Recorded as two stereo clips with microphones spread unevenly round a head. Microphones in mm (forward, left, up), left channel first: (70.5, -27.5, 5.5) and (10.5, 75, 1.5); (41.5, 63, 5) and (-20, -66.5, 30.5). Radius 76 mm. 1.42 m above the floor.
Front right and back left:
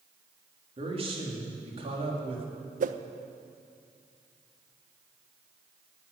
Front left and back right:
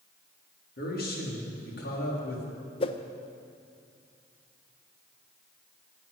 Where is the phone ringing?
I don't hear a phone ringing.